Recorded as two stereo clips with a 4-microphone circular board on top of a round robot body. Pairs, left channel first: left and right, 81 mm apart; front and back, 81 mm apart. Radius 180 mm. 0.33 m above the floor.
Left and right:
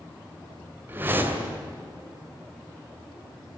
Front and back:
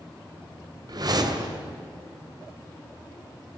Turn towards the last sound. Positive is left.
turn(degrees=-155)